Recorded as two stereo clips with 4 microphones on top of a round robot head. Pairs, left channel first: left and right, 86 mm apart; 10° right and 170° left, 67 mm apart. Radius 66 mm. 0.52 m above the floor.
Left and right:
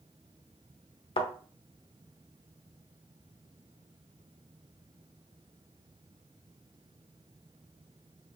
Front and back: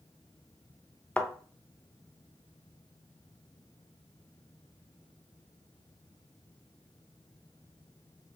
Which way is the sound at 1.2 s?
65° left.